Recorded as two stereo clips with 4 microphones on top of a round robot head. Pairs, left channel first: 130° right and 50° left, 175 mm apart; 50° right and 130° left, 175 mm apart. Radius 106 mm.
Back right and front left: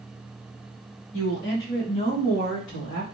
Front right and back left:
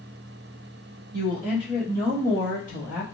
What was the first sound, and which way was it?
A woman speaking, 160° right.